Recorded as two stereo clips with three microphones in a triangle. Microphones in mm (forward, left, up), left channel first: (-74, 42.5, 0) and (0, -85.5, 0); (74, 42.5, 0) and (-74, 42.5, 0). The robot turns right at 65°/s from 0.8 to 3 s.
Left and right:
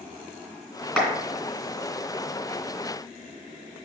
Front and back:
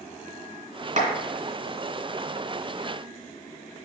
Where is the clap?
155° right, 3 m; by 1.1 s 145° right, 3 m.